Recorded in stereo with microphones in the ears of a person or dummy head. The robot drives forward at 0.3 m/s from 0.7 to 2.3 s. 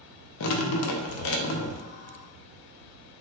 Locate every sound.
0.4 s dripping: 75° left (ahead or behind), 0.6 m; by 1.8 s 65° left (ahead or behind), 0.6 m